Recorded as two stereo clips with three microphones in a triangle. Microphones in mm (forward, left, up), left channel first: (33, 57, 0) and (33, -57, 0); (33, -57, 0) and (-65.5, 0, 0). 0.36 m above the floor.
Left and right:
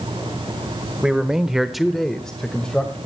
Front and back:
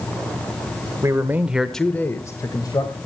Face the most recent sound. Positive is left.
turn(degrees=10)